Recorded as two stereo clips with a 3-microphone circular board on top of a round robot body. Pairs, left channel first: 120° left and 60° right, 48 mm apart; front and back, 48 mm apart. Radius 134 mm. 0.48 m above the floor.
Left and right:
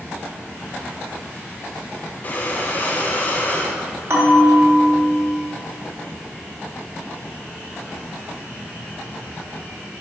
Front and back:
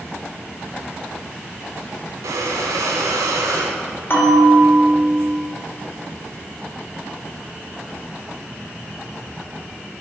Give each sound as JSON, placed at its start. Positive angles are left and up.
{"t": 2.2, "sound": "breathing", "azimuth_deg": 180, "distance_m": 0.6}
{"t": 4.1, "sound": "a bell", "azimuth_deg": -35, "distance_m": 1.8}